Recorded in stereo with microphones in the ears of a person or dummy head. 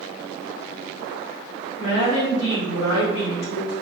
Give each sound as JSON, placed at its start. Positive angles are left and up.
{"t": 1.8, "sound": "a woman speaking", "side_deg": 60, "distance_m": 0.9}